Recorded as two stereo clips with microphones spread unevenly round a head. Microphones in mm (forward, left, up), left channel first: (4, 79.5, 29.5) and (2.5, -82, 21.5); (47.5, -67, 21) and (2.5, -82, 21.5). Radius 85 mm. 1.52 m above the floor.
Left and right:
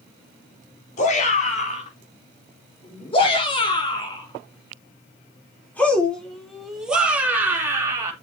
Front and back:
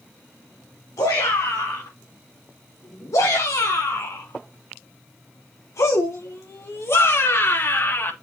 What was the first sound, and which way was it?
A shout, 45° left.